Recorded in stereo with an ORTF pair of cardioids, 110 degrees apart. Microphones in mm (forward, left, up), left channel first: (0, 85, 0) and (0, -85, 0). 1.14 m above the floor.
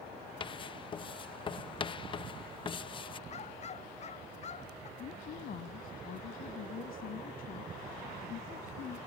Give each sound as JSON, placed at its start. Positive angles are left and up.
{"t": 0.4, "sound": "writing", "azimuth_deg": 30}
{"t": 3.3, "sound": "a dog barking", "azimuth_deg": 40}
{"t": 5.0, "sound": "a woman speaking", "azimuth_deg": 60}